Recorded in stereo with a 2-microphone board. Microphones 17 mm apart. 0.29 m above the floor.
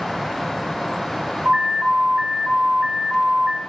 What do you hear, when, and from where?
1.4 s an alarm: 65° right (ahead or behind), 5.5 m